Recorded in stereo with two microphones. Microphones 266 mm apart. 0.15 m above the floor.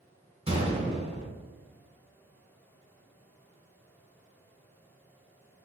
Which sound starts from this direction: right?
A gunshot, at 0.5 s.